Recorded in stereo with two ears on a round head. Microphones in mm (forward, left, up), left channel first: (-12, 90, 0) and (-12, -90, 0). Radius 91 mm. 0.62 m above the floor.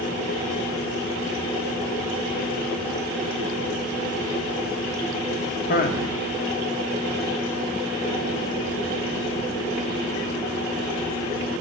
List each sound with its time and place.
5.7 s a man speaking: 45° left (ahead or behind), 1.2 m